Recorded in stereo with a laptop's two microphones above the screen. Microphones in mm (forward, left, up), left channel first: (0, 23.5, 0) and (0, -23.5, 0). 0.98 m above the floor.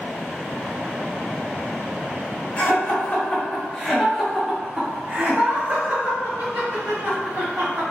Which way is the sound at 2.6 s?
40° left (ahead or behind).